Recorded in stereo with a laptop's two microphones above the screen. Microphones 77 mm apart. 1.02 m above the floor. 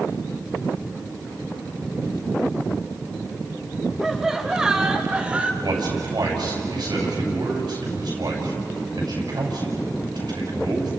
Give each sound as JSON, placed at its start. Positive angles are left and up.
{"t": 4.0, "sound": "laughter", "side_deg": -5, "distance_m": 4.5}
{"t": 5.6, "sound": "a man speaking", "side_deg": -65, "distance_m": 6.5}